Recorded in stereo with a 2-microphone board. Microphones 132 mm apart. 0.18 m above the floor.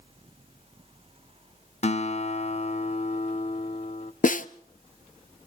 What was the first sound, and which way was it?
A guitar, 55° left (ahead or behind).